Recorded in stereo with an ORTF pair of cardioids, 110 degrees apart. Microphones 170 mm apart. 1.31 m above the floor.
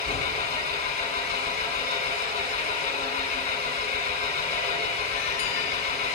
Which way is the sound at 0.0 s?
40° left.